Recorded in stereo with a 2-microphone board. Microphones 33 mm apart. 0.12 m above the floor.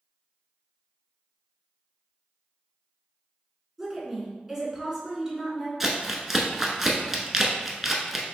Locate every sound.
3.8 s a woman speaking: 5° right (ahead or behind), 1.7 m
5.8 s crumpling: 10° right (ahead or behind), 0.8 m